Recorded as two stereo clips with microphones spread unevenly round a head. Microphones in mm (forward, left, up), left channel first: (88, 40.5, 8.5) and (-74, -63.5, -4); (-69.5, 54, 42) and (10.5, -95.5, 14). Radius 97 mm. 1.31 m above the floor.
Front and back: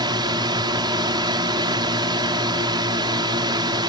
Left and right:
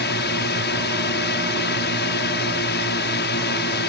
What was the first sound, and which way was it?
A drone, 145° left.